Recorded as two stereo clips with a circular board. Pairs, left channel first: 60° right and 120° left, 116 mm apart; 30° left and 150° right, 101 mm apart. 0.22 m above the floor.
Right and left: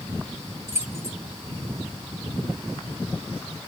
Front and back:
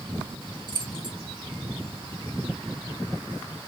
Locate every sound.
0.7 s keys jangling: straight behind, 1.4 m